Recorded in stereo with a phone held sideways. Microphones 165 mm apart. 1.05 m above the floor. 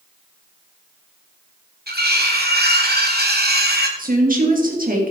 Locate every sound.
1.9 s cutlery clinking: 75° right (ahead or behind), 1.7 m
4.0 s a woman speaking: 60° right (ahead or behind), 2.5 m